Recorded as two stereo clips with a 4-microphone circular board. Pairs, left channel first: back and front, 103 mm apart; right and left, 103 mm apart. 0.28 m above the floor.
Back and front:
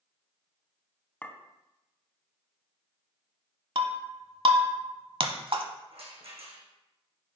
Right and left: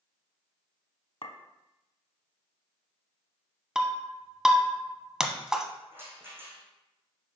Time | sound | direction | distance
1.2 | a clink | 105° right | 1.1 m
3.8 | breaking glass | 5° left | 0.9 m
5.9 | a rattle | 20° left | 3 m